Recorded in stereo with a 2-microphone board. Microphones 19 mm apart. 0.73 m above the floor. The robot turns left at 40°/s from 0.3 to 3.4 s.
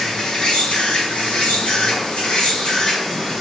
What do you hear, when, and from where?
0.0 s an insect: 135° left, 1.5 m; by 3.4 s 10° left, 1.5 m